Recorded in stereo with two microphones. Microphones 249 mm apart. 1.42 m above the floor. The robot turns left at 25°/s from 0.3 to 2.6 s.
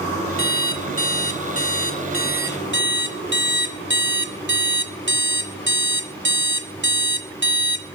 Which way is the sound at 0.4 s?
65° right.